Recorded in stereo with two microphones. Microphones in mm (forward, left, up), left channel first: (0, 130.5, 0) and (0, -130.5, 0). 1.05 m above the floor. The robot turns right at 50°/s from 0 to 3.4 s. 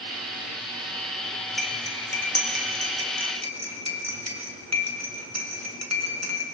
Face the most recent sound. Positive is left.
turn(degrees=-80)